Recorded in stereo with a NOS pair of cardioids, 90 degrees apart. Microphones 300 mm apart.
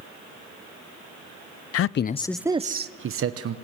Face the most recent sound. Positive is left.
turn(degrees=-55)